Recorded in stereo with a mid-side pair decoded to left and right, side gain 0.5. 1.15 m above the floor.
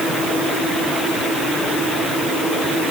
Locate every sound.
Only background noise.